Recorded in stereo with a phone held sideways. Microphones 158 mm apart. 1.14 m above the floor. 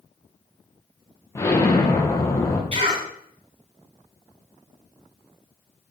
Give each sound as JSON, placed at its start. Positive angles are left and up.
{"t": 1.4, "sound": "an explosion", "side_deg": 20, "distance_m": 0.7}
{"t": 2.7, "sound": "a cough", "side_deg": -40, "distance_m": 3.0}